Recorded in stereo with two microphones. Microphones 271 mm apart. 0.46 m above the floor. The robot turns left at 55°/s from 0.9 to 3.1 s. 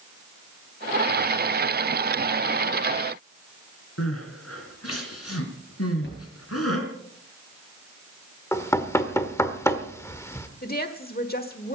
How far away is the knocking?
About 1.3 m.